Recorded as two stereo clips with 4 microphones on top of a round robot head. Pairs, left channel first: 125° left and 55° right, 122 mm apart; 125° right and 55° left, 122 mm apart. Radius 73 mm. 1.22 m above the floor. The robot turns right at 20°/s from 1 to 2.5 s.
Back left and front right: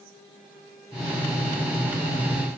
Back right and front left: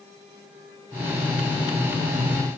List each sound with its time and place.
Only background noise.